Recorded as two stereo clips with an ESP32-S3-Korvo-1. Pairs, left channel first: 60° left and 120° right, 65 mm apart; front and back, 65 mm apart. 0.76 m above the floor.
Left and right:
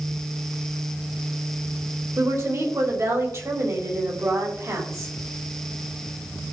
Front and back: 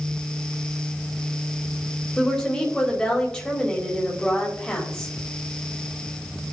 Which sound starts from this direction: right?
A woman speaking, at 2.2 s.